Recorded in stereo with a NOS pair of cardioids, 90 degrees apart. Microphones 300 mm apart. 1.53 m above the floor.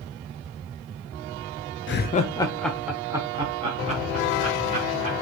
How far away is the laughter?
About 0.5 m.